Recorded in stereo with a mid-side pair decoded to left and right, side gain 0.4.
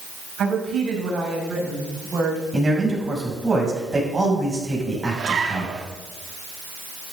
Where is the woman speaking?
60° right, 6 m; by 2.4 s 50° right, 6 m.